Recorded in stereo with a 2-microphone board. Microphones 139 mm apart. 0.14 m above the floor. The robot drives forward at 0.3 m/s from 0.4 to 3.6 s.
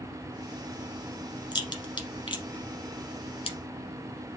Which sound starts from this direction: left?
A crack, at 1.5 s.